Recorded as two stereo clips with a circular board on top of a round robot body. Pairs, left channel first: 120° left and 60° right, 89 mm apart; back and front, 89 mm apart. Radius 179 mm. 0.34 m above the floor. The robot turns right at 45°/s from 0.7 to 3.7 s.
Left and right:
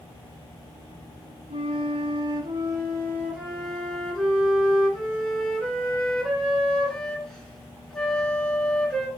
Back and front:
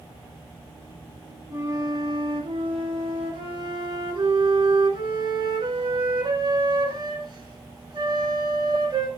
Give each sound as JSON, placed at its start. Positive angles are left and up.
{"t": 1.5, "sound": "a flute", "azimuth_deg": -65, "distance_m": 3.5}